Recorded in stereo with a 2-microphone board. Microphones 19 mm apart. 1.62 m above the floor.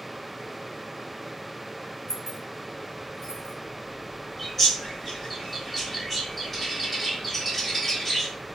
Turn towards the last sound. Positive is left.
turn(degrees=5)  # may be behind; listen again after turning